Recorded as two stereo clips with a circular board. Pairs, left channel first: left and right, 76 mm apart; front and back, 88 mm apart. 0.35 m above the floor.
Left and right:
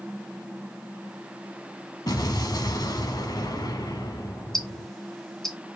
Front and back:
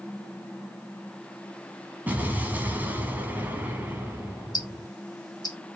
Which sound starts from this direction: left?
An explosion, at 2.1 s.